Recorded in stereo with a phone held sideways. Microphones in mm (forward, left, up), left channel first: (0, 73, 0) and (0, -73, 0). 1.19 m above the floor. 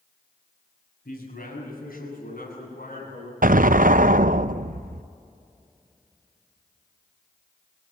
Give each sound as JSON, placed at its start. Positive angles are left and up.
{"t": 1.1, "sound": "a man speaking", "side_deg": 80, "distance_m": 7.0}
{"t": 3.4, "sound": "an explosion", "side_deg": -65, "distance_m": 0.5}